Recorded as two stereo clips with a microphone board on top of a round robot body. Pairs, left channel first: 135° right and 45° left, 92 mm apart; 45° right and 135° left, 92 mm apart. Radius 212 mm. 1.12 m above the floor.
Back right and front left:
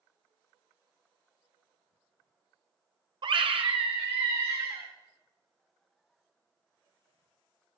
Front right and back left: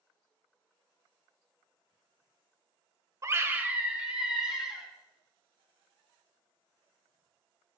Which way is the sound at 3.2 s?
80° left.